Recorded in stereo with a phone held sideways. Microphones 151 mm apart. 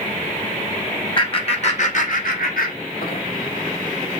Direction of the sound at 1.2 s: 35° left (ahead or behind).